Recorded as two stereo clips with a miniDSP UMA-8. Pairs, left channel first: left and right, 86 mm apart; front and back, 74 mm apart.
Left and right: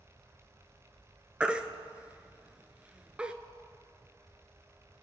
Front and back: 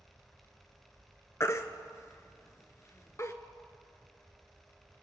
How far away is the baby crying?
About 0.6 m.